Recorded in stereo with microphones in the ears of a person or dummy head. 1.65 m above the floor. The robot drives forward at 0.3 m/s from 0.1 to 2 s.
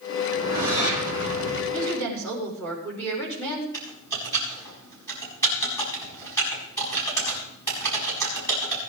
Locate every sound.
0.3 s a whoosh: 80° left, 4 m
1.7 s a woman speaking: 10° left (ahead or behind), 5 m
3.7 s typing on a keyboard: 15° left (ahead or behind), 6 m